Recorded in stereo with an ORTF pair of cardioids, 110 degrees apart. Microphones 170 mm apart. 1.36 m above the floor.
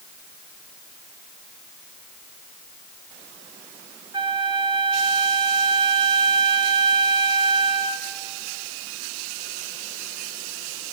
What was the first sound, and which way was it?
A flute, 30° right.